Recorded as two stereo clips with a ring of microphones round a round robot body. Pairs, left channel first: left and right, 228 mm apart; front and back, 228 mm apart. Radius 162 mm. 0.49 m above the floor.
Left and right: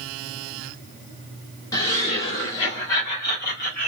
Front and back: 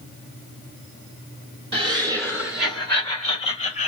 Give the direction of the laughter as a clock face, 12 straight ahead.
7 o'clock.